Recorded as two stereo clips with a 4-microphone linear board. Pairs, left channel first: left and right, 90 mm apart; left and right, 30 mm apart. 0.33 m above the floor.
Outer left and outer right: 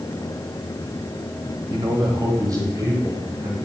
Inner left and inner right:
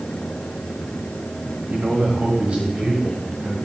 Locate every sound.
1.7 s a man speaking: 50° right (ahead or behind), 1.6 m; by 3.5 s 30° right (ahead or behind), 2.5 m